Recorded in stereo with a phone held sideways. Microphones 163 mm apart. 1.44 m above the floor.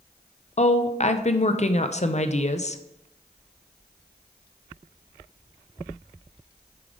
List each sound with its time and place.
0.6 s a woman speaking: 45° left (ahead or behind), 0.6 m